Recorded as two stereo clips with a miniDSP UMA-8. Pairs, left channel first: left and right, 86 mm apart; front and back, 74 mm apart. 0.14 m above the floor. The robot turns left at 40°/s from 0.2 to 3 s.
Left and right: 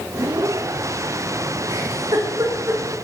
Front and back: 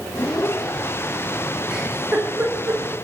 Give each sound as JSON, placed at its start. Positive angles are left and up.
{"t": 1.7, "sound": "a giggle", "azimuth_deg": -95, "distance_m": 5.0}